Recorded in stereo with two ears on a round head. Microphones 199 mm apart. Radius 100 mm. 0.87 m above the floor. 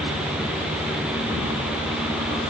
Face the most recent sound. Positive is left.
No sound to turn to.